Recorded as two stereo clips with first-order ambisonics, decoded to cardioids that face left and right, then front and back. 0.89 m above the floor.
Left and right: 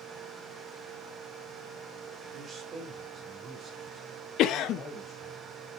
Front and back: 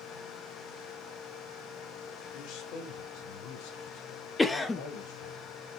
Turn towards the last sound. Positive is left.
turn(degrees=75)